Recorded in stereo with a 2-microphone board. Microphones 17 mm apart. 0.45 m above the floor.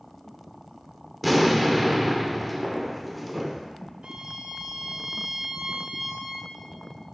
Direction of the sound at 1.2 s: Centre (ahead or behind).